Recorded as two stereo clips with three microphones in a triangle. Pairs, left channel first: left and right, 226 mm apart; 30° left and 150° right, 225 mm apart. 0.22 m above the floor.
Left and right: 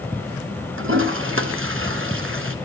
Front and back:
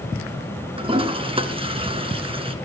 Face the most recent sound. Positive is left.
turn(degrees=-85)